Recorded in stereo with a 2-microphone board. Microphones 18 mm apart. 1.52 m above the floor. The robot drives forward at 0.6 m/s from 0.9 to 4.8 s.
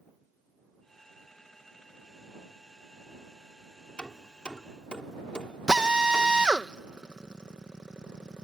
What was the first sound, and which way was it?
Hammering, 60° left (ahead or behind).